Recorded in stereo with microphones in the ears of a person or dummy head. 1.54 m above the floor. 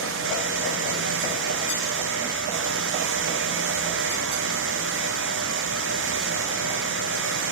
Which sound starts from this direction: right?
A fan, at 0.0 s.